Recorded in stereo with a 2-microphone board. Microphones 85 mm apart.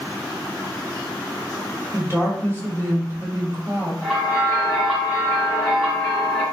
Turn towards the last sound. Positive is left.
turn(degrees=-5)  # may be behind; listen again after turning